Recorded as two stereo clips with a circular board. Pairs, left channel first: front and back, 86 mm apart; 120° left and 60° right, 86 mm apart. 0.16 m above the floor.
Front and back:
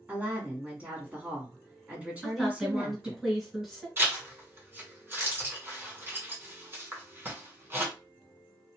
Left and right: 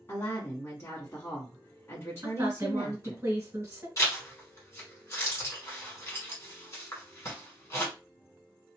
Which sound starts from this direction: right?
A woman speaking, at 2.2 s.